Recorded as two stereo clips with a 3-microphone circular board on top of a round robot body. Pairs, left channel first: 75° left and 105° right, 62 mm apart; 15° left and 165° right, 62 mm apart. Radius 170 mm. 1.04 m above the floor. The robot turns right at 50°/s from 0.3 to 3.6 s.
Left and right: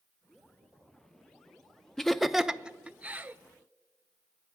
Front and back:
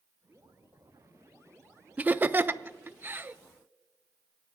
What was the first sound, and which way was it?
Laughter, 155° left.